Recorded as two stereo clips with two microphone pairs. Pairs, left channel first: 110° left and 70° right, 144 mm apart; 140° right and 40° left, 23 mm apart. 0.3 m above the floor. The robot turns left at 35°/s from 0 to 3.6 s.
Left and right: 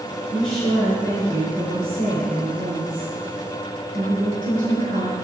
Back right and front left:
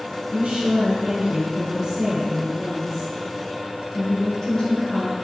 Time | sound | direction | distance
0.3 | a woman speaking | 55° left | 3.5 m